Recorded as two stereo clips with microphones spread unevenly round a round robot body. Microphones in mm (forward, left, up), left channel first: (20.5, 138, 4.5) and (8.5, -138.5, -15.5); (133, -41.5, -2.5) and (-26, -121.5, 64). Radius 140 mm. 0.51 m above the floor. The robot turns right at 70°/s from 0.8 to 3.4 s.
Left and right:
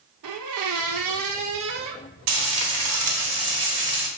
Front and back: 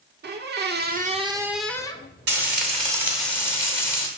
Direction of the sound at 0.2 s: 110° right.